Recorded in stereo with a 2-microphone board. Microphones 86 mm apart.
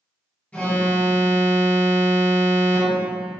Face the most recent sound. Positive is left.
turn(degrees=15)  # may be behind; listen again after turning